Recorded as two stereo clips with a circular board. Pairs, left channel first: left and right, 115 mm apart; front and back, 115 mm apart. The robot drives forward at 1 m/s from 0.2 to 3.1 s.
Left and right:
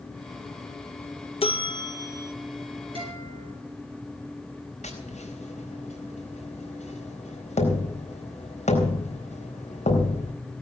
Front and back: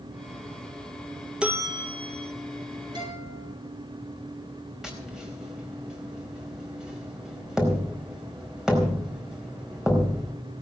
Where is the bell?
100° left, 0.5 m; by 2.3 s 160° left, 1.1 m.